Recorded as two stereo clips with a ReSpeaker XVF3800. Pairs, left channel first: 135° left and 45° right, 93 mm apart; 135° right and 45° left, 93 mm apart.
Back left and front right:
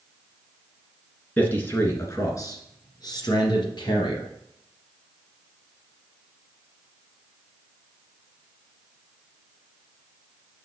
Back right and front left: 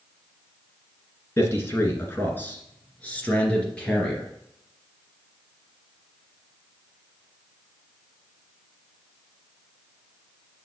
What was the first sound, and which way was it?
A man speaking, 165° right.